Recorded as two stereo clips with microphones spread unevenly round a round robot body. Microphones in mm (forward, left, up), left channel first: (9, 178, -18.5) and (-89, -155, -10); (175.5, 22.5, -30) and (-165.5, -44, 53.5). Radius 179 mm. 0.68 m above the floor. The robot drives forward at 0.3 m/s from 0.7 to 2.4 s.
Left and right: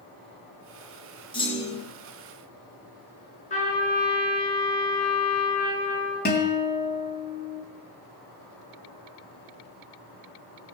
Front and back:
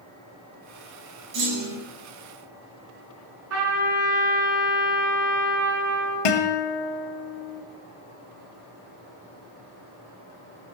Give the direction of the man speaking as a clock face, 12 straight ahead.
I don't hear a man speaking.